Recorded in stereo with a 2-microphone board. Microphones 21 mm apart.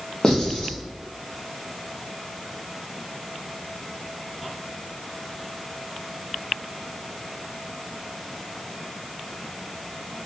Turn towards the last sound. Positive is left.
turn(degrees=35)  # may be behind; listen again after turning